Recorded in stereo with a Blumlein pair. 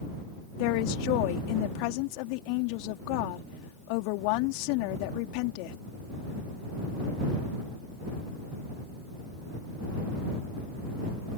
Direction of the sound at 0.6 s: 45° left.